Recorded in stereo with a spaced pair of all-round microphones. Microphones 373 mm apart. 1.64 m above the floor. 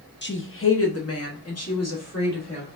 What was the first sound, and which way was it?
A woman speaking, 30° left (ahead or behind).